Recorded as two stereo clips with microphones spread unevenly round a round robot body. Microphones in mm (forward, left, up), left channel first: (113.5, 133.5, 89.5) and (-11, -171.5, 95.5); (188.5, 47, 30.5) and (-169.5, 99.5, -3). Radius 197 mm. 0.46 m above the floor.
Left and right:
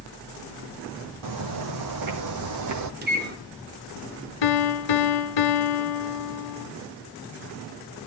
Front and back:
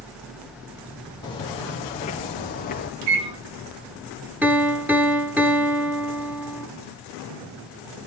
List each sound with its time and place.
1.2 s footsteps: 85° right, 2.5 m; by 2.9 s 75° right, 1.6 m
3.0 s a microwave: 170° right, 1.7 m
4.4 s a piano: 85° left, 1.5 m